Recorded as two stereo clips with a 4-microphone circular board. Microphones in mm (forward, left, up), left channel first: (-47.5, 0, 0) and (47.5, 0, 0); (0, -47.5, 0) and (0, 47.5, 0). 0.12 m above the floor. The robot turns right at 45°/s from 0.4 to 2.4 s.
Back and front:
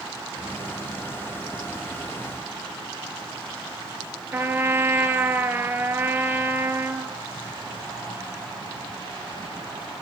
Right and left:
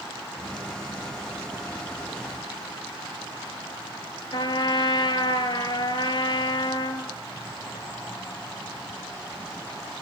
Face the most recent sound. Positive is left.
turn(degrees=-65)